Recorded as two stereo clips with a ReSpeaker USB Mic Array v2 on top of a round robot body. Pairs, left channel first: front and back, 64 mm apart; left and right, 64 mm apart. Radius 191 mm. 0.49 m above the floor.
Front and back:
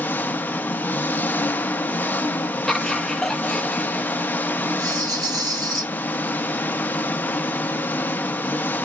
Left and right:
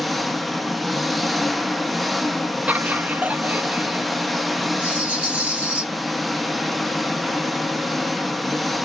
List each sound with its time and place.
0.0 s an engine running: straight ahead, 0.7 m
2.7 s laughter: 75° right, 0.8 m
4.8 s a rattle: 160° right, 1.0 m